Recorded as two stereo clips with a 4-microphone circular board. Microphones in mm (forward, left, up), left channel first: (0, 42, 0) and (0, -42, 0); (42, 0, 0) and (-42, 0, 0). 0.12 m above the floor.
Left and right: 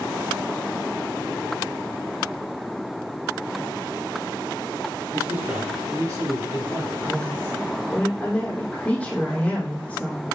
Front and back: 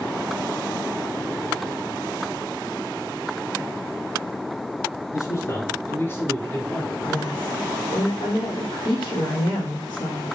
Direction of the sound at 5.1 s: 30° right.